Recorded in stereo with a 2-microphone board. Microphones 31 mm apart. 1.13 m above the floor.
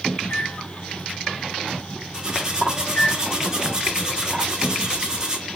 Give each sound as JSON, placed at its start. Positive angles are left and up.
{"t": 0.2, "sound": "a microwave", "side_deg": 85, "distance_m": 2.5}
{"t": 2.1, "sound": "cutlery clinking", "side_deg": -20, "distance_m": 1.4}